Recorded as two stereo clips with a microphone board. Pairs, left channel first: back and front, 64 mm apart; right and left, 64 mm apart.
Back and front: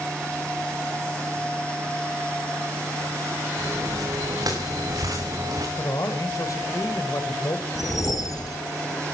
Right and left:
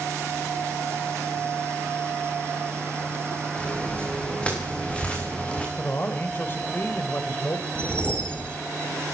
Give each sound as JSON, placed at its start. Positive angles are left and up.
{"t": 3.6, "sound": "footsteps", "azimuth_deg": -15, "distance_m": 8.0}
{"t": 5.8, "sound": "a man speaking", "azimuth_deg": -150, "distance_m": 2.5}
{"t": 7.8, "sound": "a whoosh", "azimuth_deg": -160, "distance_m": 2.0}